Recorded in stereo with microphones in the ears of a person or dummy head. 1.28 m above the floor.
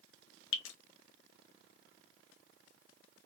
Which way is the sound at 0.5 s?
75° left (ahead or behind).